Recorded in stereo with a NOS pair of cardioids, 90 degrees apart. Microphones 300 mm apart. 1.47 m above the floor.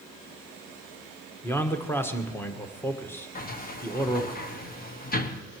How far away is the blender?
No blender in this recording.